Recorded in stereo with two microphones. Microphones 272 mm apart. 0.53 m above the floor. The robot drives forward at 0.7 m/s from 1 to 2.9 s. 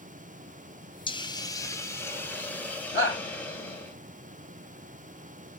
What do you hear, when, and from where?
1.1 s a hiss: 20° left (ahead or behind), 0.5 m; by 3.9 s 5° left (ahead or behind), 1.6 m
2.9 s a shout: 40° left (ahead or behind), 1.4 m